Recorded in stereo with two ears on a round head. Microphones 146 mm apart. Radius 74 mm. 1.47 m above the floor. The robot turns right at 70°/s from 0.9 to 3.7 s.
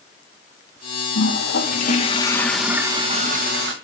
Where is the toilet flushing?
80° left, 1.8 m; by 3.7 s 100° right, 1.8 m.